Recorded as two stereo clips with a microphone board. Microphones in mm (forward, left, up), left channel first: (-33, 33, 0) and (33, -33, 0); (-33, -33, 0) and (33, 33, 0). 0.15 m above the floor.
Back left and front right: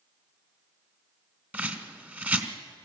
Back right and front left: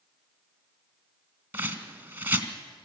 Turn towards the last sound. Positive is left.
turn(degrees=5)